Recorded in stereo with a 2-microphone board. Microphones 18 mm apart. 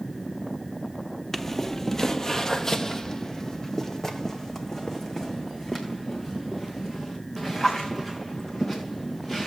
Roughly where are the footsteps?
Centre.